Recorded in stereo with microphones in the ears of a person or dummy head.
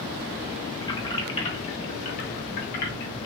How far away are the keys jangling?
About 2 m.